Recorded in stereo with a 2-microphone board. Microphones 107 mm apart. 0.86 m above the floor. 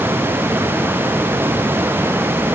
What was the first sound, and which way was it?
Only background noise.